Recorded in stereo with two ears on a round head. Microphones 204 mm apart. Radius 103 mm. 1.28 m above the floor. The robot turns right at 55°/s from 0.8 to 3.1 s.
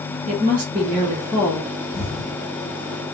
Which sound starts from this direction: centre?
An explosion, at 1.9 s.